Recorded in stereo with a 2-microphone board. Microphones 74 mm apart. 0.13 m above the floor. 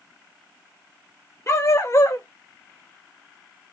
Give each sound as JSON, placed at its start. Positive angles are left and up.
{"t": 1.5, "sound": "a dog barking", "side_deg": 40, "distance_m": 0.9}